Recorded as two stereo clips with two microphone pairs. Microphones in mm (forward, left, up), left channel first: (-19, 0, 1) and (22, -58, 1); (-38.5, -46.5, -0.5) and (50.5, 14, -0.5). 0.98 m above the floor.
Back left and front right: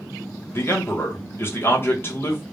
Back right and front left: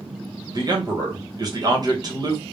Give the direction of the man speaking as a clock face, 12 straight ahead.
10 o'clock.